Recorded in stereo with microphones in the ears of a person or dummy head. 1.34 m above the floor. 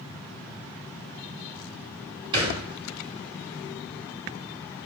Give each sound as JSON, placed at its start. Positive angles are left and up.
{"t": 2.3, "sound": "a thud", "side_deg": -25, "distance_m": 3.0}